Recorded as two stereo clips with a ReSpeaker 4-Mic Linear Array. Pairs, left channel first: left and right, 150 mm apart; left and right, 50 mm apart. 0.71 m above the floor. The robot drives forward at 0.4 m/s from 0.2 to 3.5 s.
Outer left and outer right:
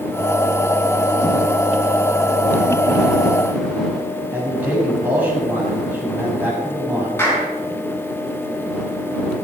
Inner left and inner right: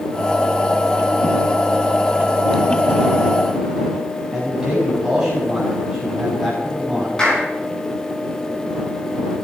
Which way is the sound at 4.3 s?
10° right (ahead or behind).